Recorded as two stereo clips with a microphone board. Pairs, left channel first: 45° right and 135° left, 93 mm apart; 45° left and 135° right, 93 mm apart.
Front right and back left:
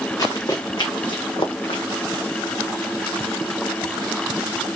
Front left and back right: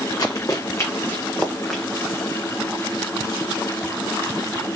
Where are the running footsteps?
5° left, 1.3 m; by 1.8 s 45° right, 1.1 m.